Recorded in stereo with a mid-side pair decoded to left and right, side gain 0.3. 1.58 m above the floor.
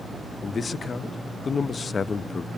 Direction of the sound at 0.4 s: 55° left.